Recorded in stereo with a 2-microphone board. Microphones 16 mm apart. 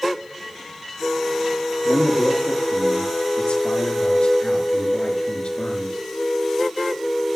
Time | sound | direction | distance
1.9 | a man speaking | 75° left (ahead or behind) | 5 m